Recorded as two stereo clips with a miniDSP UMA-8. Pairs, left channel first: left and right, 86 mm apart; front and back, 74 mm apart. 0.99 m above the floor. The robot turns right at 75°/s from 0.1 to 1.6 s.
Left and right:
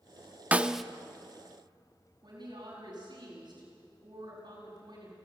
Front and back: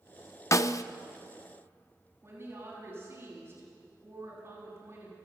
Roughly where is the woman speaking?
Behind right.